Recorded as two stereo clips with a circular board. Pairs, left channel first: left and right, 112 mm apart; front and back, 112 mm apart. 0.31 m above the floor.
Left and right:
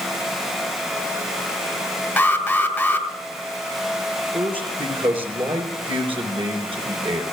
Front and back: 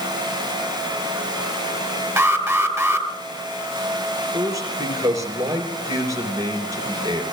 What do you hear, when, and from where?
2.2 s an alarm: 140° left, 1.7 m
4.3 s a man speaking: 125° right, 3.5 m